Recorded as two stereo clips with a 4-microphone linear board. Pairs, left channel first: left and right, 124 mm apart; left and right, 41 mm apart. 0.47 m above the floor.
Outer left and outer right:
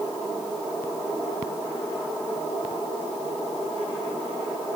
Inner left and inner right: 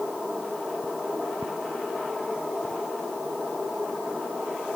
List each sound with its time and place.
Only background noise.